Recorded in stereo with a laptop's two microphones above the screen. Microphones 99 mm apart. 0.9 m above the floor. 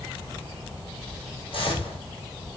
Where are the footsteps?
65° left (ahead or behind), 1.8 m.